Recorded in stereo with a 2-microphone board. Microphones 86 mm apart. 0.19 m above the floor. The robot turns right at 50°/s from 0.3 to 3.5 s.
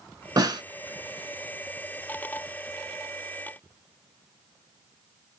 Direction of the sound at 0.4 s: 50° right (ahead or behind).